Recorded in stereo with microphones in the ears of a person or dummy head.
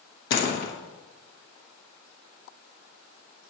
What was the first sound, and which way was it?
A door slam, 65° left (ahead or behind).